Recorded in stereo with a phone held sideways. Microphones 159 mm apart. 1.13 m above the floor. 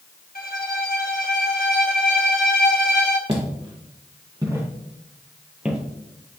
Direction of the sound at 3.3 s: 35° right (ahead or behind).